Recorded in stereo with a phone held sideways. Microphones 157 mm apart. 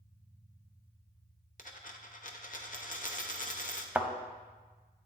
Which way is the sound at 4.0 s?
10° right (ahead or behind).